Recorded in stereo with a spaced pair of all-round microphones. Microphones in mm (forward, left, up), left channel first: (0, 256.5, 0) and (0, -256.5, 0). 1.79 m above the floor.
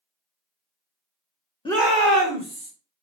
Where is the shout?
10° left (ahead or behind), 0.6 m; by 2.7 s 55° right (ahead or behind), 0.9 m.